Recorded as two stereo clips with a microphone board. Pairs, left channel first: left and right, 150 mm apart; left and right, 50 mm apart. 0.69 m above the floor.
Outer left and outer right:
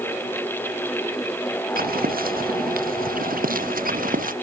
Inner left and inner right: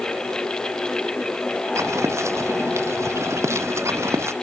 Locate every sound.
1.8 s footsteps: 75° right (ahead or behind); by 4.3 s 70° right (ahead or behind)